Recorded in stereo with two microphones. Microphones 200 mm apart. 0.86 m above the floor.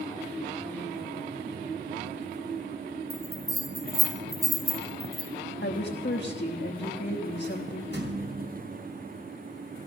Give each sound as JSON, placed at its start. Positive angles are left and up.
{"t": 3.1, "sound": "a bell", "side_deg": -20, "distance_m": 2.5}
{"t": 5.6, "sound": "a woman speaking", "side_deg": 70, "distance_m": 1.3}
{"t": 7.9, "sound": "a thud", "side_deg": -70, "distance_m": 3.5}